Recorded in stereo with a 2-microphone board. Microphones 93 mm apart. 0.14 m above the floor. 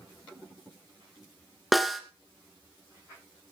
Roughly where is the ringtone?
No ringtone in this recording.